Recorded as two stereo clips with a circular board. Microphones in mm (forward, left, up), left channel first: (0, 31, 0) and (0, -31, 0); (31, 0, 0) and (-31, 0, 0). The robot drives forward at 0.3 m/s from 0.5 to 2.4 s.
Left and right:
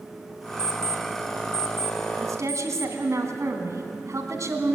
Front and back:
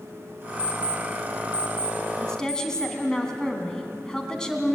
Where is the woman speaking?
75° right, 2 m; by 4.8 s 80° right, 2 m.